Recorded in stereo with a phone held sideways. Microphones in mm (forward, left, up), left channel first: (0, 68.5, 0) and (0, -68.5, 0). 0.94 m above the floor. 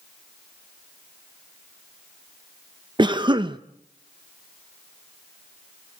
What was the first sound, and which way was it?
A cough, 35° right (ahead or behind).